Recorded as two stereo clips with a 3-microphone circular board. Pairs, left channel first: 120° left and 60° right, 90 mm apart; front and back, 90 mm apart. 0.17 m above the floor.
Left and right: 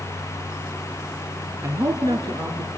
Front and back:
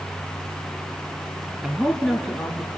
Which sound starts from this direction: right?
A man speaking, at 1.6 s.